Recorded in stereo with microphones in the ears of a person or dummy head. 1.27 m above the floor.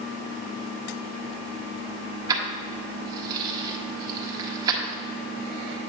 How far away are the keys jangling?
About 1.4 m.